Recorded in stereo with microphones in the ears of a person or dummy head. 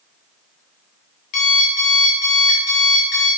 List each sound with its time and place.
1.3 s an alarm clock: 50° left (ahead or behind), 2 m